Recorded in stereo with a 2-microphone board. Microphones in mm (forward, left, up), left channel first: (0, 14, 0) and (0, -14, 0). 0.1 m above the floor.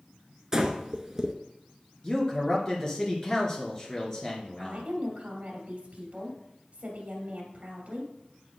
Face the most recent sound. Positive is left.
turn(degrees=-45)  # may be behind; listen again after turning